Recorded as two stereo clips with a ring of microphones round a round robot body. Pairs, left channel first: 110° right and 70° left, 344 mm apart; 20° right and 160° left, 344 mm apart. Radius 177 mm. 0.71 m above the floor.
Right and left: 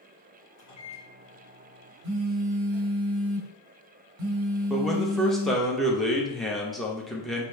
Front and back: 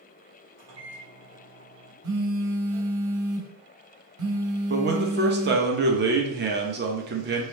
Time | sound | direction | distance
0.6 | a microwave | 155° right | 1.8 m
2.0 | a phone buzzing | 110° left | 1.2 m
4.7 | a man speaking | 160° left | 0.9 m